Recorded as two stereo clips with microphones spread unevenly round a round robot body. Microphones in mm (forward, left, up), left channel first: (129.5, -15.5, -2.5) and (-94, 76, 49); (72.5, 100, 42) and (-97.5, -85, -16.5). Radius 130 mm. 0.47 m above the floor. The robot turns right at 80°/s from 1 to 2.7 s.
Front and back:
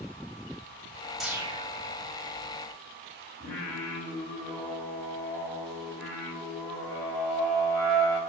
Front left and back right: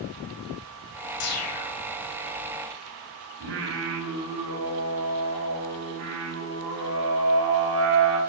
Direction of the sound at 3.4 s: 105° right.